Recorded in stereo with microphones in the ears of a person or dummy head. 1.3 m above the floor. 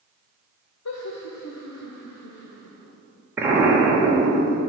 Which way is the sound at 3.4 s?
15° right (ahead or behind).